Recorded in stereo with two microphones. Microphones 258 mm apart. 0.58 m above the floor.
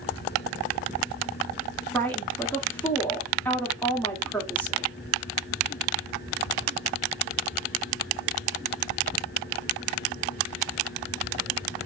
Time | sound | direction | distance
1.9 | a woman speaking | 5° left (ahead or behind) | 1.0 m